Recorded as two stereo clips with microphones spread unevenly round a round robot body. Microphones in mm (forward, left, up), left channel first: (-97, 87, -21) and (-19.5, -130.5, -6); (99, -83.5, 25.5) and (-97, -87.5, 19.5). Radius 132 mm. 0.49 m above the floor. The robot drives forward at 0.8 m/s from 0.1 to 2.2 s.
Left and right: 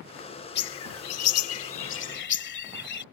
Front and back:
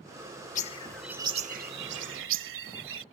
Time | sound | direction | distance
0.6 | a bird | 60° left | ?